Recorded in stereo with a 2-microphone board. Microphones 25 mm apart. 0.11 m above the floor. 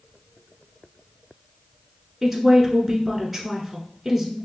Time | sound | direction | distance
2.2 | a woman speaking | 5° right (ahead or behind) | 1.1 m